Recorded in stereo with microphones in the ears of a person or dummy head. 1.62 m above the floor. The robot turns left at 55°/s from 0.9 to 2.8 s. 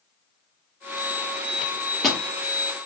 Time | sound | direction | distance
1.6 | a microwave | 30° left (ahead or behind) | 0.8 m